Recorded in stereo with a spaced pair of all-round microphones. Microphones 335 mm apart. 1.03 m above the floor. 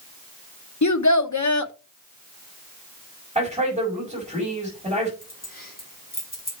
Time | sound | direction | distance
0.8 | a child speaking | 60° left (ahead or behind) | 0.9 m
3.4 | a man speaking | 20° right (ahead or behind) | 5.5 m
5.2 | keys jangling | 25° left (ahead or behind) | 3.5 m